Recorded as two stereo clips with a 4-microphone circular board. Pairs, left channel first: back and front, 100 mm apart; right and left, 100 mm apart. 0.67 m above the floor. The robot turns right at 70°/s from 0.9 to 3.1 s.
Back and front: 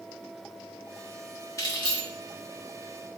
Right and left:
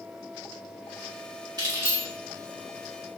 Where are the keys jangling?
125° left, 1.1 m; by 2.0 s 160° left, 1.1 m.